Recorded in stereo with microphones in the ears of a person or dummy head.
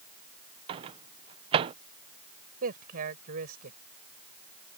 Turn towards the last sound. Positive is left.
turn(degrees=-50)  # may be behind; listen again after turning